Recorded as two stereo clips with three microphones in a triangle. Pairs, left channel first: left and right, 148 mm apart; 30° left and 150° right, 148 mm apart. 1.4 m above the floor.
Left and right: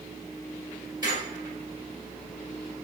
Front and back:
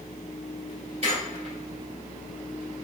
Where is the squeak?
140° right, 1.8 m.